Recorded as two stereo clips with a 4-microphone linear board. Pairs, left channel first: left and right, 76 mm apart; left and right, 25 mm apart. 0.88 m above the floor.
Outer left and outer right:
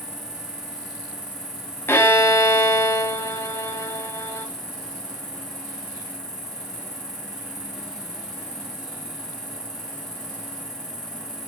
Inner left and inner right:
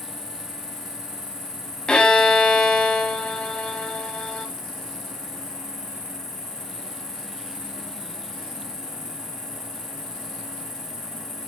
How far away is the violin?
About 1.8 m.